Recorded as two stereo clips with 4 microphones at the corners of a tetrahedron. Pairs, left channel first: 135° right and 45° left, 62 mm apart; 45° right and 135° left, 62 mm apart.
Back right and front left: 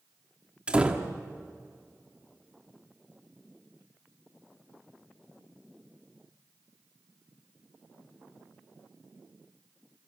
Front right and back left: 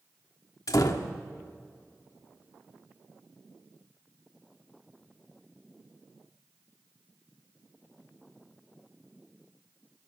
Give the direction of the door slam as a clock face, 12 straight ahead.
1 o'clock.